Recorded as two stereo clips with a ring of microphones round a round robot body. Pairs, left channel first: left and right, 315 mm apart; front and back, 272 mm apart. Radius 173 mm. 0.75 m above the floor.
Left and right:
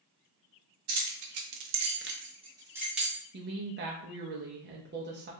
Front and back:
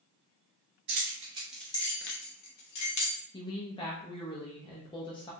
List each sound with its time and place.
0.9 s keys jangling: 130° right, 0.9 m; by 3.2 s straight ahead, 1.3 m
3.3 s a woman speaking: 60° right, 0.6 m